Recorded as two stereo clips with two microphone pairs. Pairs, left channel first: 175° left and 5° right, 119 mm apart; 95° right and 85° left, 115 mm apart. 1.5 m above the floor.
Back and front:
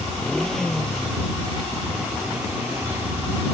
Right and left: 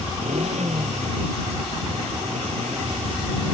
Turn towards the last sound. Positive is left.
turn(degrees=65)